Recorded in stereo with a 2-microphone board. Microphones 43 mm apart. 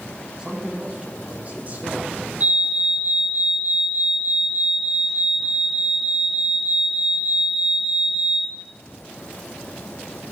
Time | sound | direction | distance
0.4 | a man speaking | 20° right (ahead or behind) | 2.5 m
2.4 | a fire alarm | 40° right (ahead or behind) | 4.5 m